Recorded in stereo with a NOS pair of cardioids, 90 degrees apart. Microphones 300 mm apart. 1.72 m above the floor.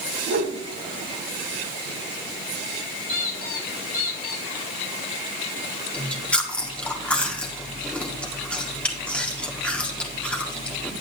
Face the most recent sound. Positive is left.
turn(degrees=5)